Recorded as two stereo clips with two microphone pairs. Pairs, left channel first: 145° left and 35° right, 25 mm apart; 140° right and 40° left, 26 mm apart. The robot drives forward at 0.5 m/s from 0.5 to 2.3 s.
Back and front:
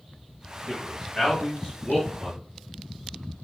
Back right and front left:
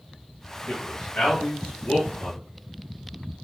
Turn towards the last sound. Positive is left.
turn(degrees=-135)